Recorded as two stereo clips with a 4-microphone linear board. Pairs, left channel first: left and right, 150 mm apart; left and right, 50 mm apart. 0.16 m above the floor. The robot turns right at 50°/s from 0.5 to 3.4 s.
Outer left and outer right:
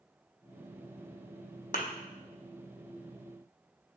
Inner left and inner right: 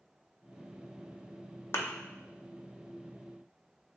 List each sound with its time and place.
1.7 s a thud: 55° left (ahead or behind), 0.6 m; by 1.9 s 50° left (ahead or behind), 0.6 m